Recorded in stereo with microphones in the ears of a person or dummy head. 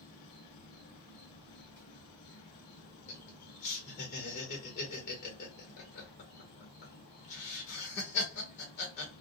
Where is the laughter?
55° left (ahead or behind), 1.3 m.